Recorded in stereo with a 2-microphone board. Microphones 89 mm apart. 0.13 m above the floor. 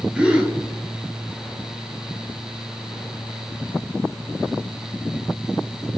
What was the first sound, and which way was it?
A gasp, 10° right (ahead or behind).